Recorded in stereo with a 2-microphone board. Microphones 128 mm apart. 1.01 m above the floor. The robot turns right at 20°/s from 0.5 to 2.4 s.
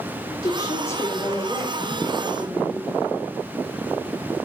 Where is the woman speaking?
140° left, 3.5 m; by 3.0 s 175° left, 3.5 m.